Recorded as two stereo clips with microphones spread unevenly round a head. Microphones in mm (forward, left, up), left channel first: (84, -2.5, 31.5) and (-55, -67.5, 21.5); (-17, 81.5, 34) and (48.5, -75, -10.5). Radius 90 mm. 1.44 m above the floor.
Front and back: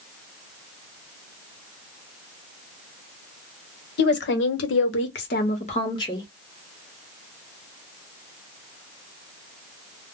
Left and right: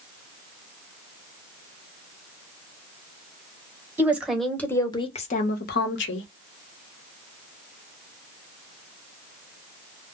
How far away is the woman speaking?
About 1.0 m.